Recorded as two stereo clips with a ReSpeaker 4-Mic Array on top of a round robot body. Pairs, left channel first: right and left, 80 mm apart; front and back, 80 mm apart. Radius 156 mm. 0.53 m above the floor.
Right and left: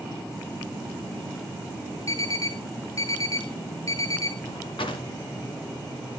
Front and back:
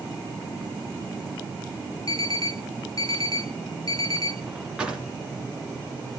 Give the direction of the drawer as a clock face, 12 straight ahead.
3 o'clock.